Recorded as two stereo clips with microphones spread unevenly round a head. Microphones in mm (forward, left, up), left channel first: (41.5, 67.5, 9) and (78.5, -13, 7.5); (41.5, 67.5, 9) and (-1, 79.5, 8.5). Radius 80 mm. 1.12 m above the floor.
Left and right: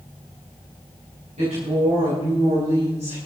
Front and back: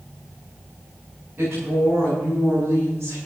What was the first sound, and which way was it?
A woman speaking, 110° right.